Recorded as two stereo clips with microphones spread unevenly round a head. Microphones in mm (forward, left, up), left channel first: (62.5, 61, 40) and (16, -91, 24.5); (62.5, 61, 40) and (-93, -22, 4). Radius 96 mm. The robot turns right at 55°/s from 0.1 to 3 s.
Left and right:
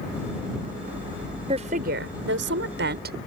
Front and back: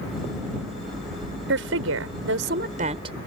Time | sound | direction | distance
1.5 | a woman speaking | 170° right | ?